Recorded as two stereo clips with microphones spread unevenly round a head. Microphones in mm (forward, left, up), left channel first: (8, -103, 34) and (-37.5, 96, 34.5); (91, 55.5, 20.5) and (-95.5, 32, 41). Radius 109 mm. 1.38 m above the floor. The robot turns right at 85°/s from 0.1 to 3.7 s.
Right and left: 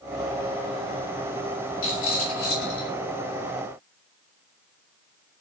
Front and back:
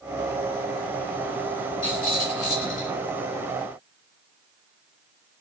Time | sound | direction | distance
1.8 | a rattle | 95° right | 6.5 m